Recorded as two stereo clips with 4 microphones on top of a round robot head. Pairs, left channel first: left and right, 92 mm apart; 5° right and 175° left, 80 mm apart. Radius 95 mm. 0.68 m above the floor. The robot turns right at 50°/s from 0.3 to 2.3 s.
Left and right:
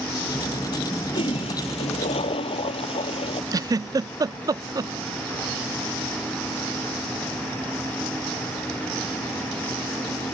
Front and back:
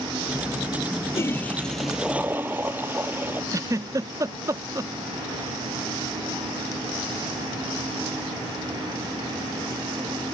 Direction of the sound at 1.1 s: 50° left.